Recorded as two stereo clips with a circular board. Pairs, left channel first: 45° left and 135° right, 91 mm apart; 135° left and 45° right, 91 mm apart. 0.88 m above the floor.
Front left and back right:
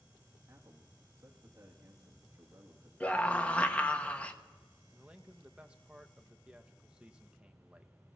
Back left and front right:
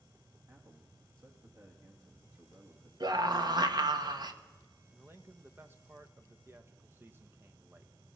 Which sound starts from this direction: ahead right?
A scream, at 3.0 s.